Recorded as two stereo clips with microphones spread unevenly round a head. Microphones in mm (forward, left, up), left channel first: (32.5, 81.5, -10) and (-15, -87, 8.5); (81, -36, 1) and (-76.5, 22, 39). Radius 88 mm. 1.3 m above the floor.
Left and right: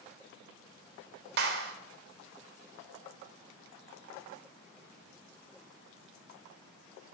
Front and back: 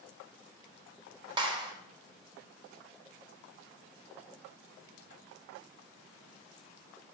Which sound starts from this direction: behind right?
A clap, at 1.4 s.